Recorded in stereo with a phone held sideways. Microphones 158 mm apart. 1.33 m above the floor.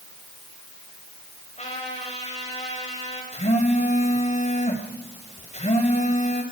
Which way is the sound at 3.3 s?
45° left (ahead or behind).